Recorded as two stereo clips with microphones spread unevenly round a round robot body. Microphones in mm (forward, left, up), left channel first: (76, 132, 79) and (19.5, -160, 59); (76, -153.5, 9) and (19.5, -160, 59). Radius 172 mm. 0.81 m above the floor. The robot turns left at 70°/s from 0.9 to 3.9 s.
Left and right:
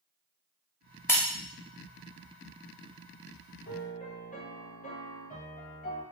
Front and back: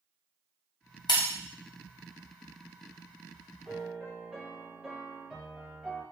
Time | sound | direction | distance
1.1 | breaking glass | straight ahead | 0.6 m
3.6 | a piano | 35° left | 1.1 m